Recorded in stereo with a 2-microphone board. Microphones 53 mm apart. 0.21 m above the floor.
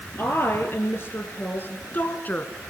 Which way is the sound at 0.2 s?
45° left (ahead or behind).